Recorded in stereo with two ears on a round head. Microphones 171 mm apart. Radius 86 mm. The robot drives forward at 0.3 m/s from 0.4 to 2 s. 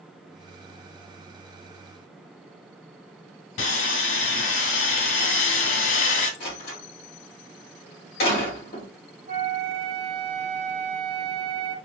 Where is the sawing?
70° left (ahead or behind), 0.9 m.